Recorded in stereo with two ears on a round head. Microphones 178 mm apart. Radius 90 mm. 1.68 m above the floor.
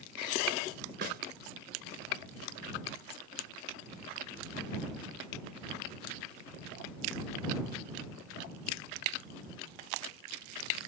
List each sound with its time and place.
1.0 s a snare drum: 50° right (ahead or behind)